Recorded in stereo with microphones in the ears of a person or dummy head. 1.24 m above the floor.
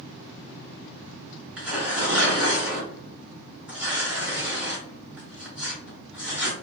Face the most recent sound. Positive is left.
turn(degrees=-5)  # may be behind; listen again after turning